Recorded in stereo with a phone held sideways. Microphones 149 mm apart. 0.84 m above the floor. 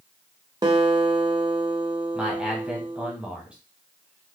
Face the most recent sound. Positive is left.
turn(degrees=-10)  # may be behind; listen again after turning